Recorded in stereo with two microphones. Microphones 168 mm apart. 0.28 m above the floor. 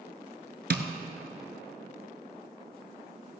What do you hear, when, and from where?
0.7 s tapping: 75° right (ahead or behind), 0.9 m